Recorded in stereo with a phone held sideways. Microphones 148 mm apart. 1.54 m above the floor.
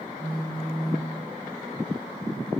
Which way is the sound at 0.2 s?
40° right (ahead or behind).